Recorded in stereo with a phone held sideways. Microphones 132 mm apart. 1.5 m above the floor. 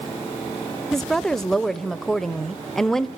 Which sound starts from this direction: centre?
A woman speaking, at 0.9 s.